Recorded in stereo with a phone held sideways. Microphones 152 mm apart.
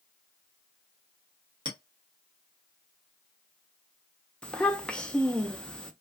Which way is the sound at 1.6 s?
30° right (ahead or behind).